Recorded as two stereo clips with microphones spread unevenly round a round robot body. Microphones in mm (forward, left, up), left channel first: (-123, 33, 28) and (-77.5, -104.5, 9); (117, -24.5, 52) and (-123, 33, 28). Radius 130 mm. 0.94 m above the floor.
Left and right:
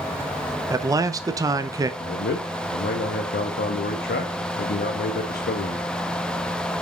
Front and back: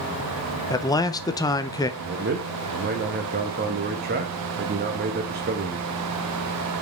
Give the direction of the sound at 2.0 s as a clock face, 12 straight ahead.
8 o'clock.